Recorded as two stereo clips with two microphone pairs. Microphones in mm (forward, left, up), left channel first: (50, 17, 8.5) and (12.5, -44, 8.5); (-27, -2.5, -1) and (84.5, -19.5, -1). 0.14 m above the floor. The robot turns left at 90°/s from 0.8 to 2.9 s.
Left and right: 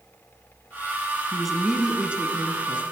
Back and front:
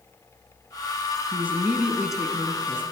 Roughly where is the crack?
I don't hear a crack.